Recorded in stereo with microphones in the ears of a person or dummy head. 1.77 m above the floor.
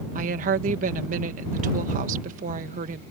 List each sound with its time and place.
0.1 s a woman speaking: 45° right (ahead or behind)